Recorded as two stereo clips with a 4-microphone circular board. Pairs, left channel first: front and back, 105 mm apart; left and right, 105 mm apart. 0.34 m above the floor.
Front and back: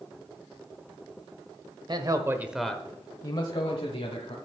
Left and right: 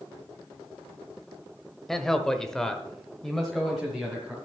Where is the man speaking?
175° left, 1.2 m; by 4.3 s straight ahead, 2 m.